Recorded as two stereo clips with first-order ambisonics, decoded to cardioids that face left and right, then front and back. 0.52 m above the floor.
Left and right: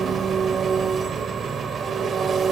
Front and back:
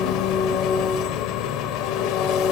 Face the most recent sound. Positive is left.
turn(degrees=-25)